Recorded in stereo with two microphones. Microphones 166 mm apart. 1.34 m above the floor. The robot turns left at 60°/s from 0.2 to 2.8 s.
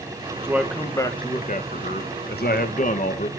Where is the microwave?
I don't hear a microwave.